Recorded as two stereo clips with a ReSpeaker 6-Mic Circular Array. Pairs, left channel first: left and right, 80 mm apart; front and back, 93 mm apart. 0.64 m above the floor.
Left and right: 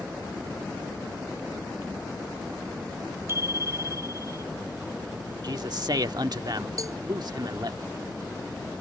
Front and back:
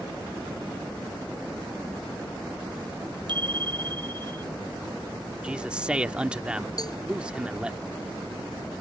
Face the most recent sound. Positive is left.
turn(degrees=-45)